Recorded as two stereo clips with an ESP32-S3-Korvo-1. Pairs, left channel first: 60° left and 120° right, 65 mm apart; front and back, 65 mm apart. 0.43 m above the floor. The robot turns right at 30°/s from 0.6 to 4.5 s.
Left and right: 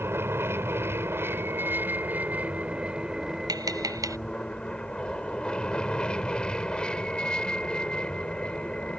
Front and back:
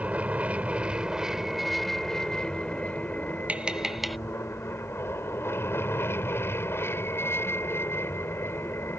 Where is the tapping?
110° right; by 4.2 s 90° right.